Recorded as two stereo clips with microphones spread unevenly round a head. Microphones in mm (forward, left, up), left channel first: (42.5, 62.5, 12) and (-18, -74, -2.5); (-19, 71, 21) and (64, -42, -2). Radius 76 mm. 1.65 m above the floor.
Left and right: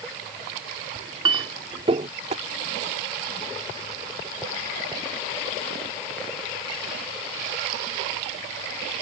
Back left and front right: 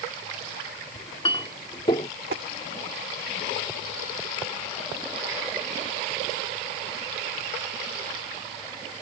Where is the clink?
175° right.